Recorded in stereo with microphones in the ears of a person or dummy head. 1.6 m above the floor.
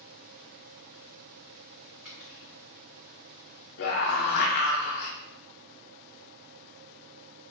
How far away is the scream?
About 0.8 m.